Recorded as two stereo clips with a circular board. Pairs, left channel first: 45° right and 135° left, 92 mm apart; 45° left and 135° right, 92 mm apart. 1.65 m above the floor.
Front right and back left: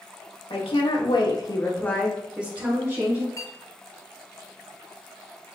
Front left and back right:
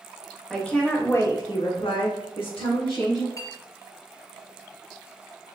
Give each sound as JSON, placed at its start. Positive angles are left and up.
{"t": 0.5, "sound": "a woman speaking", "azimuth_deg": -40, "distance_m": 1.7}
{"t": 3.4, "sound": "a clink", "azimuth_deg": 0, "distance_m": 1.2}